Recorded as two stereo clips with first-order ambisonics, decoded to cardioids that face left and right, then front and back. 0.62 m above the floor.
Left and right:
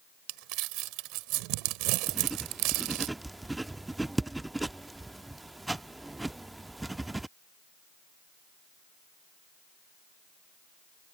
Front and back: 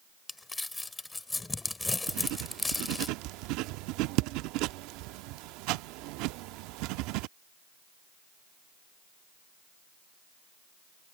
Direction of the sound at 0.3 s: 80° right.